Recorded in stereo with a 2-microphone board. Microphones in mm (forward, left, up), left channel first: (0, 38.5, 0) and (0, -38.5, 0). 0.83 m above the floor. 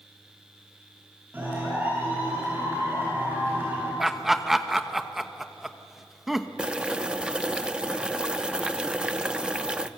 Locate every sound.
1.3 s a clap: 25° right (ahead or behind), 9.5 m
4.0 s laughter: 5° right (ahead or behind), 1.0 m
6.6 s boiling: 15° right (ahead or behind), 0.8 m